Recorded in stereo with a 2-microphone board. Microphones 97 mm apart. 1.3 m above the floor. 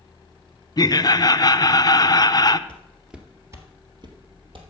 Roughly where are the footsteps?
Centre.